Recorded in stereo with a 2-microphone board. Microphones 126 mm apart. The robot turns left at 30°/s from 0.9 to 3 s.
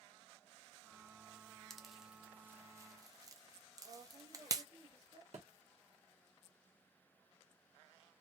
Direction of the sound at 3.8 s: 40° right (ahead or behind).